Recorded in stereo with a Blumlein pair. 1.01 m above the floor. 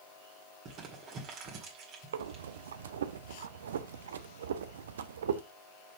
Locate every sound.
0.7 s crumpling: 35° right, 2.0 m
2.1 s breathing: 60° right, 0.6 m